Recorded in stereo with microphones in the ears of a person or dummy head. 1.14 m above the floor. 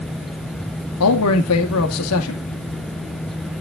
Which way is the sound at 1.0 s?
80° left.